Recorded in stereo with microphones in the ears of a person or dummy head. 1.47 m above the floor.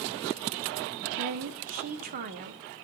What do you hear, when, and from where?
1.1 s a woman speaking: 40° right (ahead or behind), 1.0 m